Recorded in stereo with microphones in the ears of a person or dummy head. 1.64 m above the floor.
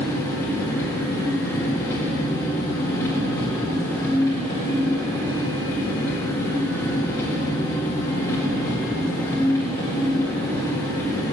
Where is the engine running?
20° left (ahead or behind), 2 m.